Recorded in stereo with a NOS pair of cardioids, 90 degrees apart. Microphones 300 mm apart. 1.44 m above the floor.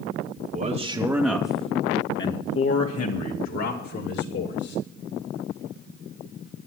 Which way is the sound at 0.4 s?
35° right.